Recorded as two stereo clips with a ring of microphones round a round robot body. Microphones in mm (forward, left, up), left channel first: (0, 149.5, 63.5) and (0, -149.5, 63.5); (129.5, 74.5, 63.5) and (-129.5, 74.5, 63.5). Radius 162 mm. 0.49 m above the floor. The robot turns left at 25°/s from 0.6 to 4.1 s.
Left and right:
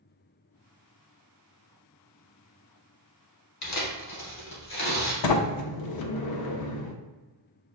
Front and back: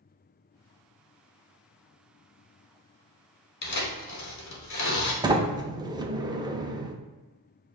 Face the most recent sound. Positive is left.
turn(degrees=105)